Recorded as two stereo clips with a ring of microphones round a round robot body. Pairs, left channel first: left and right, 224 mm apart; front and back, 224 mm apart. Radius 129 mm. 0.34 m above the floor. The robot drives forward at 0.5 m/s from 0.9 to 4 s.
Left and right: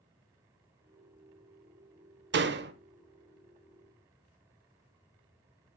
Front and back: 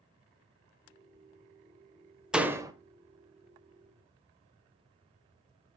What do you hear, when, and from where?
2.3 s a door slam: 95° right, 0.8 m; by 2.7 s 110° right, 0.9 m